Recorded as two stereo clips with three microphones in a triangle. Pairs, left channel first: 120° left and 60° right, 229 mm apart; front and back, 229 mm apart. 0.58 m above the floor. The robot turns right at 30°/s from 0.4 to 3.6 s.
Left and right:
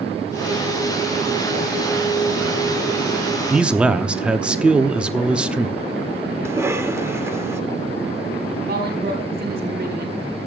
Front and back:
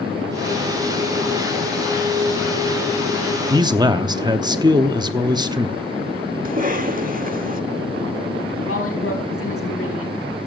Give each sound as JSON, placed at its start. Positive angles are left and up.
{"t": 3.5, "sound": "a man speaking", "azimuth_deg": -140, "distance_m": 0.8}
{"t": 6.5, "sound": "a cough", "azimuth_deg": -135, "distance_m": 1.6}
{"t": 8.7, "sound": "a woman speaking", "azimuth_deg": -15, "distance_m": 4.5}